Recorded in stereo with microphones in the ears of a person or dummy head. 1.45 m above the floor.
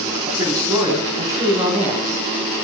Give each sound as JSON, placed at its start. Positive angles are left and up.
{"t": 0.3, "sound": "a man speaking", "side_deg": -15, "distance_m": 4.5}